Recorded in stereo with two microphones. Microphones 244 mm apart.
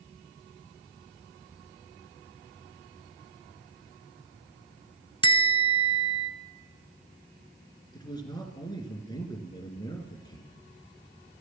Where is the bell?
20° left (ahead or behind), 0.6 m.